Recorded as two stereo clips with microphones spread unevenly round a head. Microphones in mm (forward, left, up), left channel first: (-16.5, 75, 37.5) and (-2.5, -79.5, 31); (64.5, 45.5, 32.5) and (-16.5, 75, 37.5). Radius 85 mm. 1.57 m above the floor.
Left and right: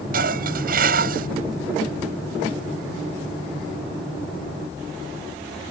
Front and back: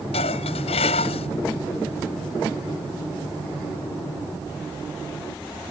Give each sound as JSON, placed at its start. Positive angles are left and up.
{"t": 0.1, "sound": "dishes clattering", "azimuth_deg": -45}